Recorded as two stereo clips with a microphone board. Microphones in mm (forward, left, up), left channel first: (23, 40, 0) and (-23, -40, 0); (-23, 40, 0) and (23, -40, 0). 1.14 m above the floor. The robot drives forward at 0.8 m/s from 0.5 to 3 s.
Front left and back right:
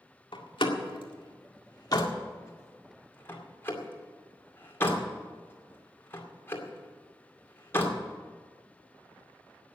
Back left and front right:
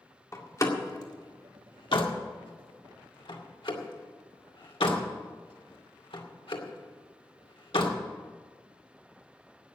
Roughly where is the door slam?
Left.